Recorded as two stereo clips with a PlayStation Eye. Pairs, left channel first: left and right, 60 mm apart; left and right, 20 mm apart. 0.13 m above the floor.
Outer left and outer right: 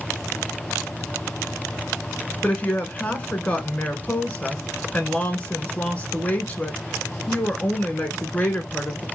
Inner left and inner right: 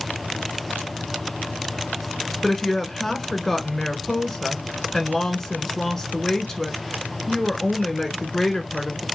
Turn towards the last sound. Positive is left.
turn(degrees=20)  # may be behind; listen again after turning